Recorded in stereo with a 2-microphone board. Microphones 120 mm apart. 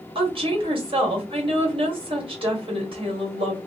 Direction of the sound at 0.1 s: 50° right (ahead or behind).